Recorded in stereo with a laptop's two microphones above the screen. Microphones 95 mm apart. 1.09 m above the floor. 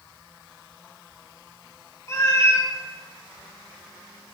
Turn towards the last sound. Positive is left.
turn(degrees=35)  # may be behind; listen again after turning